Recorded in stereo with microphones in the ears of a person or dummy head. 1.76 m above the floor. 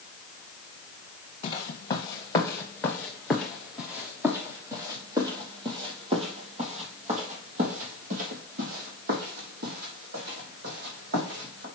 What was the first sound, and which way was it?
Footsteps, 35° left (ahead or behind).